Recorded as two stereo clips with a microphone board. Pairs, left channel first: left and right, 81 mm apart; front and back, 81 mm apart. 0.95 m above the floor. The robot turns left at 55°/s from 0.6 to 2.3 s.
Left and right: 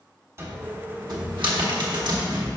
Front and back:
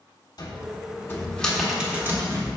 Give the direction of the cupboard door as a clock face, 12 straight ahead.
1 o'clock.